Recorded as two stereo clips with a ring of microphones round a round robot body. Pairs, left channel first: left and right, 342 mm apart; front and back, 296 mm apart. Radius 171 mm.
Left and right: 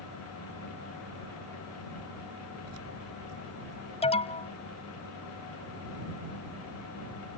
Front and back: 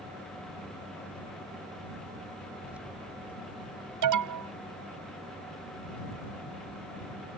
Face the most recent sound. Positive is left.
turn(degrees=165)